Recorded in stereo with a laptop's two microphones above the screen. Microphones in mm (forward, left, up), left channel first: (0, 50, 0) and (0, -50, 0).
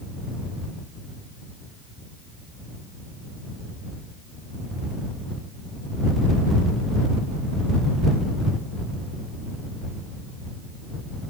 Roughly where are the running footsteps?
No running footsteps in this recording.